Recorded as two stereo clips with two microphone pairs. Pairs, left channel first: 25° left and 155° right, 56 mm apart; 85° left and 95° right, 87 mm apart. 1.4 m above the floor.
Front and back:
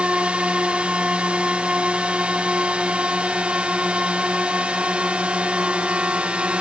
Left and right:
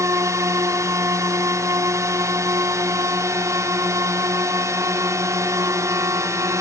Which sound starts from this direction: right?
A drone, at 0.0 s.